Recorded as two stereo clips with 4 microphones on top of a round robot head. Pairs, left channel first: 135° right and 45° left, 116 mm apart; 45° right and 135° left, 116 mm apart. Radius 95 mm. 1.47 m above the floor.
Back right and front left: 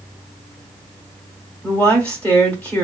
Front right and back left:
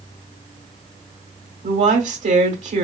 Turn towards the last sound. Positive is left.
turn(degrees=145)